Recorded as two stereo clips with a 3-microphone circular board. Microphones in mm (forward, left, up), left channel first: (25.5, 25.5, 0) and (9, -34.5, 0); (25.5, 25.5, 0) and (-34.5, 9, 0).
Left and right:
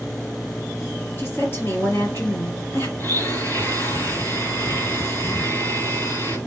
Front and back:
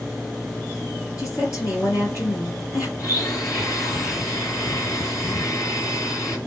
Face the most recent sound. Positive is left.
turn(degrees=25)